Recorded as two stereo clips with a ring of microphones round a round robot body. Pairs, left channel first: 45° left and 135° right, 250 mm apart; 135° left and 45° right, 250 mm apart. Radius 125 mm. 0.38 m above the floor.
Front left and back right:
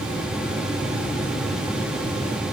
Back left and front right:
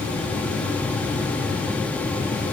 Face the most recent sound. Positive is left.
No sound to turn to.